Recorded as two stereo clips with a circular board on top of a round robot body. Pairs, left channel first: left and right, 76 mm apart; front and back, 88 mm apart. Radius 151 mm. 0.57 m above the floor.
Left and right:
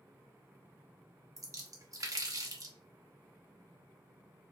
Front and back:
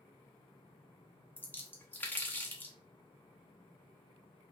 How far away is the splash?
About 0.8 m.